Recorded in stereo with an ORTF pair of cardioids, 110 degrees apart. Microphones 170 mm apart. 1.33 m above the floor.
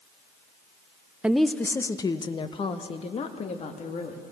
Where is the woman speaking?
5° right, 0.7 m; by 4.2 s 45° left, 2.5 m.